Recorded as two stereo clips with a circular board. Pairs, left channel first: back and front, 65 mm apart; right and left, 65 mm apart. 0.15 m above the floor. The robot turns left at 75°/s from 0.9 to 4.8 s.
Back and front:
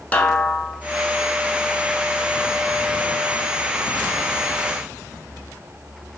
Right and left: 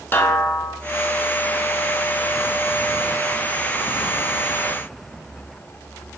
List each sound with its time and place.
0.1 s a snare drum: 125° right, 0.7 m